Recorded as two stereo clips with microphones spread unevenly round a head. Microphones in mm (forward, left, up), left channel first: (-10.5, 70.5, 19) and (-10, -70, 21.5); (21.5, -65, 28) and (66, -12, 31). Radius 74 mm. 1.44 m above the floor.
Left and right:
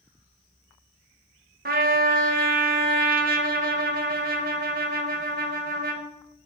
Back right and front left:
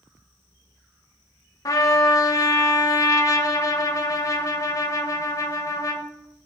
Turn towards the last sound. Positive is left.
turn(degrees=-100)